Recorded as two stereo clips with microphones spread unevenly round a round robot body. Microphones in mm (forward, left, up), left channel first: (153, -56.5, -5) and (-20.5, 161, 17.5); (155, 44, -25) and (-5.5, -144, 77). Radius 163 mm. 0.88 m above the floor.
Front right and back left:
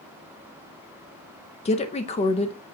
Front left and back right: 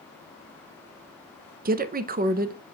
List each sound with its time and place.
1.6 s a woman speaking: 70° right, 0.6 m